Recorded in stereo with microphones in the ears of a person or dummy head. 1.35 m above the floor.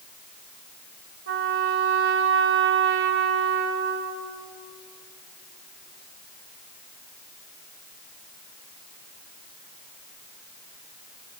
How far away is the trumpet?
About 2.5 m.